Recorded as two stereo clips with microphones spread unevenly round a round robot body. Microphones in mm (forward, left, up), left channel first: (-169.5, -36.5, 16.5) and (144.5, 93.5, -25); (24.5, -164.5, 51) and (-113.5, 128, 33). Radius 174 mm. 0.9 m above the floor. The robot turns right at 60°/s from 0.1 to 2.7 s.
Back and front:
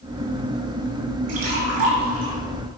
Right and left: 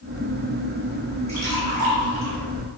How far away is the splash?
About 3.5 m.